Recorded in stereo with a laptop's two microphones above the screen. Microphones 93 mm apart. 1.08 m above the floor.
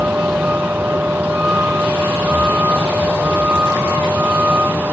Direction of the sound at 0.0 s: 15° right (ahead or behind).